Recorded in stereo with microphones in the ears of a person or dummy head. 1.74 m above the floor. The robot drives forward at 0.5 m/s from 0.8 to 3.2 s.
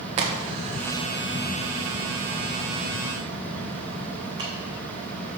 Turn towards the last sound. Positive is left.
turn(degrees=-35)  # may be behind; listen again after turning